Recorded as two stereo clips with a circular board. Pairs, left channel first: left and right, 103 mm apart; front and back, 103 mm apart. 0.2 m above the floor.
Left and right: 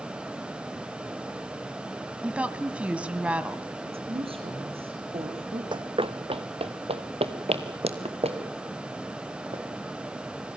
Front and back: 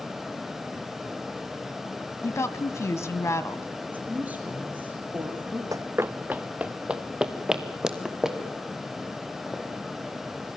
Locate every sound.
2.2 s a woman speaking: 25° right, 1.4 m
3.9 s a woman speaking: 105° right, 5.5 m
5.7 s running footsteps: 125° right, 0.6 m; by 9.6 s 95° right, 4.5 m